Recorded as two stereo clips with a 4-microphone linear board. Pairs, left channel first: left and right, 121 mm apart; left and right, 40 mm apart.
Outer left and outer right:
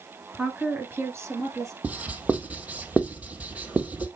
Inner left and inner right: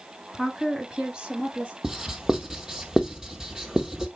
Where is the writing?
10° right (ahead or behind), 1.4 m.